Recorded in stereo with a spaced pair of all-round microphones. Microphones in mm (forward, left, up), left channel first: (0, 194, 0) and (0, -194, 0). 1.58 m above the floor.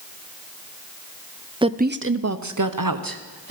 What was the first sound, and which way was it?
A woman speaking, 10° right (ahead or behind).